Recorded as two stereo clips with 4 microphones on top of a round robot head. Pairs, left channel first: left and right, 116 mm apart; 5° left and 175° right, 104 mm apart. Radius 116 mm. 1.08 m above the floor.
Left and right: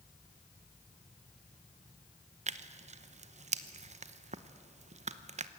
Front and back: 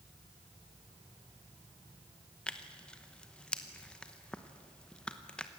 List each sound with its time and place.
2.5 s tearing paper: 75° right, 1.0 m